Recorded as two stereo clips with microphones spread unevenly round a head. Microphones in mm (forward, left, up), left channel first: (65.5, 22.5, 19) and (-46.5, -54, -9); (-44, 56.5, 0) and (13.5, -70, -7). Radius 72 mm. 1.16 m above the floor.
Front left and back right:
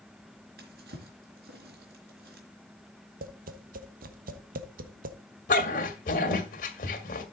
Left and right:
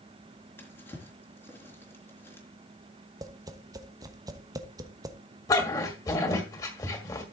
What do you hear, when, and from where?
0.6 s a drawer: 175° right, 3.5 m
3.2 s tapping: 130° right, 1.1 m
5.5 s a dog barking: 50° left, 1.8 m